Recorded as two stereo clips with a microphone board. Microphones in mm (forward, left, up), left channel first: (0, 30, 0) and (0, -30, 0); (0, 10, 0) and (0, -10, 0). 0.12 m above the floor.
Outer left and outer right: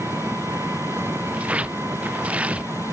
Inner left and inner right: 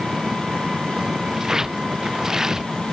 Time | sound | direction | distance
0.0 | an engine running | 40° right (ahead or behind) | ?
1.3 | tearing paper | 20° right (ahead or behind) | ?